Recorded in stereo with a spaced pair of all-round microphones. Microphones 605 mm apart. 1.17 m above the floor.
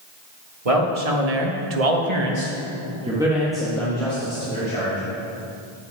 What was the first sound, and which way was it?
A man speaking, 65° right (ahead or behind).